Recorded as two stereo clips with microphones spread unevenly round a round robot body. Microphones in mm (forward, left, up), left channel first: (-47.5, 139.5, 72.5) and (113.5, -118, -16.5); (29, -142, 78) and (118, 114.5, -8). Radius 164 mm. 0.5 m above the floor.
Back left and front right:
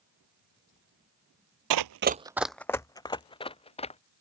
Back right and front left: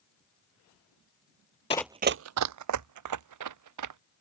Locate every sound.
1.7 s running footsteps: 75° right; by 4.0 s 55° left